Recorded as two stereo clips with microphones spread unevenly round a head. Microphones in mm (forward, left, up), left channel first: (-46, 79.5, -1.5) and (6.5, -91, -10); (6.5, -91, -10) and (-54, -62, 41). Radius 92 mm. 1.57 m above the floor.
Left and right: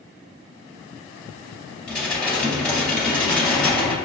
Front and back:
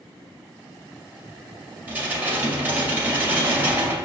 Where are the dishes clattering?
170° right, 1.8 m.